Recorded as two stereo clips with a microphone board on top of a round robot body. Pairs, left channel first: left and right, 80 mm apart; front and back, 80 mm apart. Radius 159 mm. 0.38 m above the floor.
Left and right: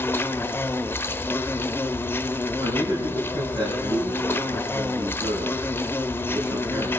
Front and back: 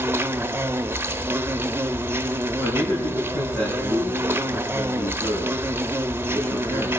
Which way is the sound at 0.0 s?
135° left.